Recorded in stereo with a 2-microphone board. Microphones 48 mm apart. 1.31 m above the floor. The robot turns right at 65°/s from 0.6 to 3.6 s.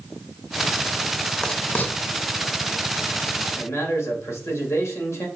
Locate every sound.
1.4 s writing: 15° left (ahead or behind), 0.5 m; by 1.9 s 45° left (ahead or behind), 0.5 m
3.6 s a man speaking: 70° left (ahead or behind), 1.9 m; by 5.3 s 75° left (ahead or behind), 1.9 m